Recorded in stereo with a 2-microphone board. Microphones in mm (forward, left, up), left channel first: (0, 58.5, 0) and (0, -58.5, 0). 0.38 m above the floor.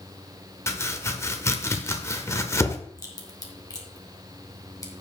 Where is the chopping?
25° left (ahead or behind), 0.9 m.